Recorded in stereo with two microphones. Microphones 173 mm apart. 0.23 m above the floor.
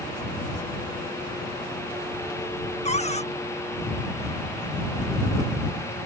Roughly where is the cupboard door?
Left.